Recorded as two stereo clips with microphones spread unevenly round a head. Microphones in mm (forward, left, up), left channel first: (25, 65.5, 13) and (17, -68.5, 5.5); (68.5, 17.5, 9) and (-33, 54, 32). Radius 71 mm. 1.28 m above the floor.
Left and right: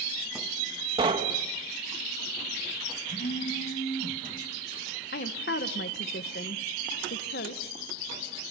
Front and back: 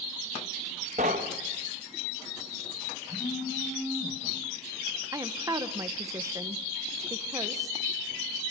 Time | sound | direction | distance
1.0 | knocking | 155° right | 1.3 m
3.1 | a phone buzzing | 40° left | 7.5 m
5.1 | a woman speaking | 95° left | 1.3 m